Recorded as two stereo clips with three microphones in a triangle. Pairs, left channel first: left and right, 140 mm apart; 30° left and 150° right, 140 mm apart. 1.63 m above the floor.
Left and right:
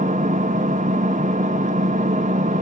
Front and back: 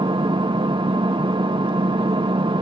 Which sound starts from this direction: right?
An engine running, at 0.0 s.